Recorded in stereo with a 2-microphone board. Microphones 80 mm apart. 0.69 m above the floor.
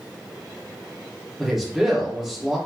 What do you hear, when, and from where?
1.4 s a man speaking: 5° right (ahead or behind), 1.7 m